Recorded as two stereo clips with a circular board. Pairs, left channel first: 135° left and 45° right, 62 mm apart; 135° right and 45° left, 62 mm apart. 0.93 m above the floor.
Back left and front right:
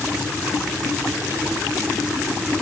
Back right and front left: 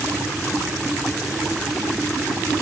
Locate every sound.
Only background noise.